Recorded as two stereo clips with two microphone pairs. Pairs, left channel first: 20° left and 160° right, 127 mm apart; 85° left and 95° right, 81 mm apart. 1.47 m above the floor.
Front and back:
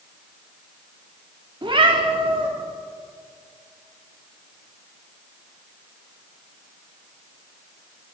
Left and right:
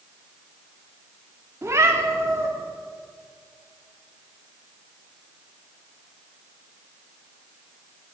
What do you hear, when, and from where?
1.6 s a cat meowing: 135° right, 1.2 m